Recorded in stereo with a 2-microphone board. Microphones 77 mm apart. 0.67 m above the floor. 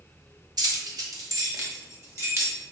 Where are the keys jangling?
65° right (ahead or behind), 0.8 m; by 2.6 s 40° right (ahead or behind), 1.7 m.